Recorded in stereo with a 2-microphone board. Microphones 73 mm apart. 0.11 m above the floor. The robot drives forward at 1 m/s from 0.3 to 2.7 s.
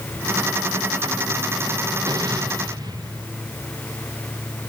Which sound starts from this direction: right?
An explosion, at 2.1 s.